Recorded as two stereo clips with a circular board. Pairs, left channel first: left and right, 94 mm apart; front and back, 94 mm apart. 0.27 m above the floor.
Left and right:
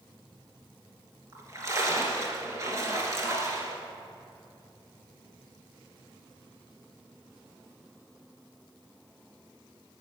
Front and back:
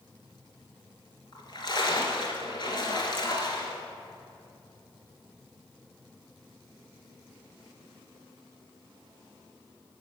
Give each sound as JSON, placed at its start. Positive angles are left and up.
{"t": 1.3, "sound": "a splash", "azimuth_deg": -35, "distance_m": 2.5}